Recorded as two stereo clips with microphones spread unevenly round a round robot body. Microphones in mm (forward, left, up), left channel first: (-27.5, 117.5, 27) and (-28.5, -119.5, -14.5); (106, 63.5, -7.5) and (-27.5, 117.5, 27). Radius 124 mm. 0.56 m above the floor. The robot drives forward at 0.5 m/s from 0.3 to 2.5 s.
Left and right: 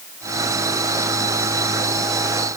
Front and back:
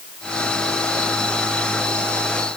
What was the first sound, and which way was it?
Only background noise.